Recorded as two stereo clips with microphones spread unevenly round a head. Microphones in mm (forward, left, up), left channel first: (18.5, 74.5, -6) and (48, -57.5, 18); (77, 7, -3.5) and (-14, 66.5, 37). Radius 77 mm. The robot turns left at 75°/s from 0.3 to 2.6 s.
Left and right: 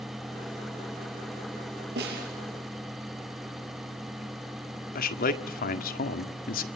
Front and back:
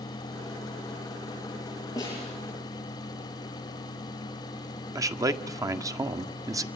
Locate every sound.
2.0 s a snare drum: 100° right, 8.5 m; by 2.3 s 125° right, 8.5 m
5.0 s a man speaking: 85° left, 1.7 m